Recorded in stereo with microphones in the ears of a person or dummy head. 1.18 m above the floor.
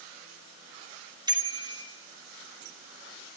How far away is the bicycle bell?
About 2.5 m.